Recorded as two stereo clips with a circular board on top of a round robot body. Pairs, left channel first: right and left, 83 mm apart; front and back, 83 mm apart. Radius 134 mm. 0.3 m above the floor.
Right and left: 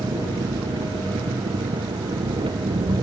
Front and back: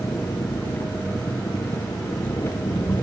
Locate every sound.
0.0 s an engine running: 60° left